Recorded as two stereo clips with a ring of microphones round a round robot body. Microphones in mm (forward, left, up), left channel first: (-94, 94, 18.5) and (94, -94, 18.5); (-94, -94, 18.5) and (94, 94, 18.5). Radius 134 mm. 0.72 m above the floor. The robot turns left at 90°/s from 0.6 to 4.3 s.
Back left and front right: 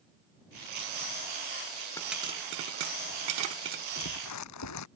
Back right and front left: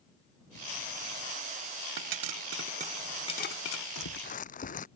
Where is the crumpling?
165° right; by 4.9 s 165° left.